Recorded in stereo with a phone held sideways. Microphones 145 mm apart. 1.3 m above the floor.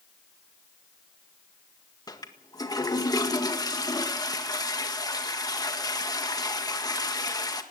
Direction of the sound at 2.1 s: 25° left (ahead or behind).